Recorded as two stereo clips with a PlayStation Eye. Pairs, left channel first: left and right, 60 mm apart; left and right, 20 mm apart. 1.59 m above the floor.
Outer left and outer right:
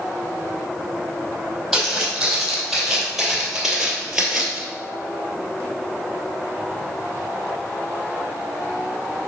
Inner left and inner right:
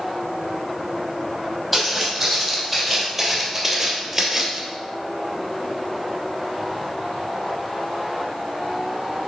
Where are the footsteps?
5° right (ahead or behind), 3 m; by 4.6 s 10° right (ahead or behind), 1.9 m.